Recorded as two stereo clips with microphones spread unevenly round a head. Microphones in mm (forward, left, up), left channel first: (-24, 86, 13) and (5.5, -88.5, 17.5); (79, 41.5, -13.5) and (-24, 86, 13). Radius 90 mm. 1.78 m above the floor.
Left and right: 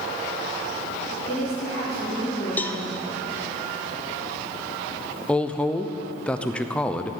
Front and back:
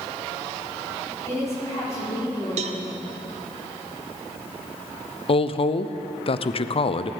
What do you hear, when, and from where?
1.3 s a woman speaking: 45° left, 4.5 m
2.6 s a cowbell: straight behind, 0.7 m
5.3 s a woman speaking: 15° left, 0.6 m